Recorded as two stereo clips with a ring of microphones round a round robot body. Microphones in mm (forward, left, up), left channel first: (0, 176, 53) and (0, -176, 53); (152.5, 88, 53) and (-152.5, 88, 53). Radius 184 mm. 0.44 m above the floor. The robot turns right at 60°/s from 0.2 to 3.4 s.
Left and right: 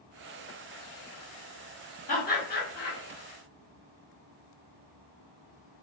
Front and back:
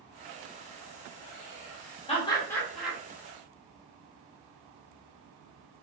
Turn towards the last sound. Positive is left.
turn(degrees=125)